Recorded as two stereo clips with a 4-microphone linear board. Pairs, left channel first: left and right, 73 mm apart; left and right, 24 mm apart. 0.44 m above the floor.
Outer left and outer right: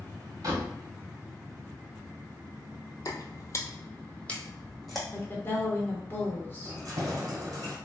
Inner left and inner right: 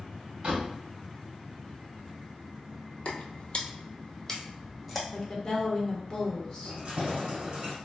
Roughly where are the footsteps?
Left.